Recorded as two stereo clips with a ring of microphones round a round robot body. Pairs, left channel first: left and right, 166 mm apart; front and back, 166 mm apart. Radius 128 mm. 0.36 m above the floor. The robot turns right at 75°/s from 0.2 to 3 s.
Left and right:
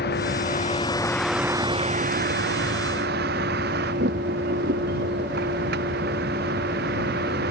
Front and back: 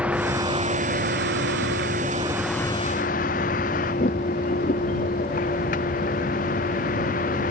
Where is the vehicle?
100° left; by 7.5 s 50° right.